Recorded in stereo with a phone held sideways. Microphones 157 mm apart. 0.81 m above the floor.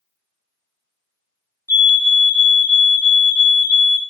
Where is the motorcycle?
I don't hear a motorcycle.